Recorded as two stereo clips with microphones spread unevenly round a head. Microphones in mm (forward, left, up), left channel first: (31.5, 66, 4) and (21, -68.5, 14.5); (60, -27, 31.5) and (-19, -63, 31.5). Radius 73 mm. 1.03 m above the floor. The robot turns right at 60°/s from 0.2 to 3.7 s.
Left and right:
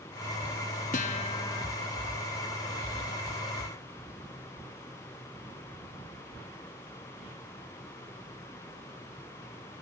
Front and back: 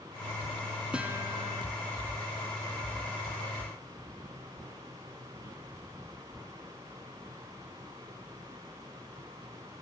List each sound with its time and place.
0.9 s a guitar: 120° left, 0.7 m; by 1.7 s 165° left, 0.7 m